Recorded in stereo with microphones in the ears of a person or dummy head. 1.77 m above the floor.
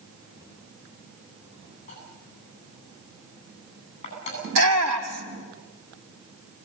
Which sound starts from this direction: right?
A shout, at 4.4 s.